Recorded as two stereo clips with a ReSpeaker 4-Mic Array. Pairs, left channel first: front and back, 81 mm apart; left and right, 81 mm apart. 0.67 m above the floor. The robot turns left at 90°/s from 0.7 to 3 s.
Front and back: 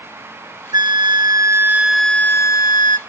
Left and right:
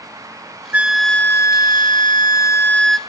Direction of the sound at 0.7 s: 160° right.